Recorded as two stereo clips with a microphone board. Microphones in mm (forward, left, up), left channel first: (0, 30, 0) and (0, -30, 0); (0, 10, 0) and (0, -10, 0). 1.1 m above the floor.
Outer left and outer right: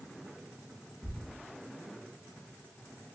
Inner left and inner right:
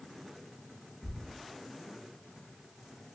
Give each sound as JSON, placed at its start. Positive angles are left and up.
{"t": 1.0, "sound": "a thud", "side_deg": 10, "distance_m": 0.7}